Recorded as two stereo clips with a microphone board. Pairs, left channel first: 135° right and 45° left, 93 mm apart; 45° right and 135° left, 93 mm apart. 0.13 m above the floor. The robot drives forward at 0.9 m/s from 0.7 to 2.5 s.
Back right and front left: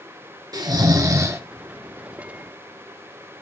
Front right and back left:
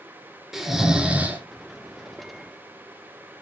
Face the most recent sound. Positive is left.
turn(degrees=135)